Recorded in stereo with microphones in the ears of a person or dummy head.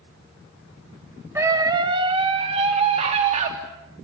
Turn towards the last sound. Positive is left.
turn(degrees=-35)  # may be behind; listen again after turning